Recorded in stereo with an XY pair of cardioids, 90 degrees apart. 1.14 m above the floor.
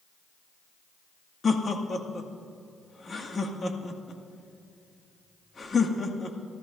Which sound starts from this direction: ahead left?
Laughter, at 1.4 s.